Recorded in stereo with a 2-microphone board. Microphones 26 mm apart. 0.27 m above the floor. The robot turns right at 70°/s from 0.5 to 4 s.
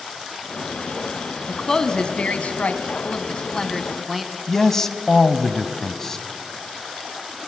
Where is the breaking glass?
I don't hear breaking glass.